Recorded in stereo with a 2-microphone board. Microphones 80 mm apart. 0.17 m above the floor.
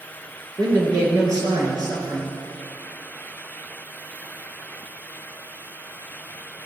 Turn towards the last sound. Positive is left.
turn(degrees=-45)  # may be behind; listen again after turning